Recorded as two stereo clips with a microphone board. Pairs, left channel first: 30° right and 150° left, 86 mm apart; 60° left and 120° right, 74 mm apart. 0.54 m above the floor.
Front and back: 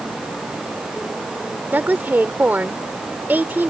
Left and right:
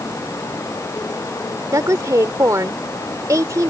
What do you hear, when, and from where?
1.7 s a woman speaking: 145° right